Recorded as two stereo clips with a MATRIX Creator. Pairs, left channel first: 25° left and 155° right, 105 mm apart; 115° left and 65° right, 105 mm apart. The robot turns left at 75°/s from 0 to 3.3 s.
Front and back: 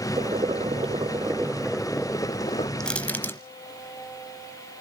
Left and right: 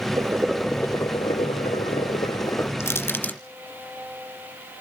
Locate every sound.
0.1 s boiling: 125° right, 1.7 m; by 2.7 s 45° left, 1.7 m
2.8 s crushing: 100° left, 0.8 m; by 3.4 s 60° left, 0.8 m